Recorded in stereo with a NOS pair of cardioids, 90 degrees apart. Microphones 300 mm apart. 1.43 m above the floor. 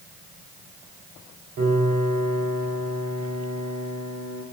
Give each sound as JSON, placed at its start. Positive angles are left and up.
{"t": 1.6, "sound": "a piano", "azimuth_deg": -65, "distance_m": 4.0}